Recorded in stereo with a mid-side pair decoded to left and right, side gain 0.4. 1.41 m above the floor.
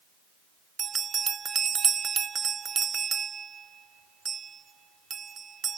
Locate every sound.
0.8 s a bell: 50° right, 0.9 m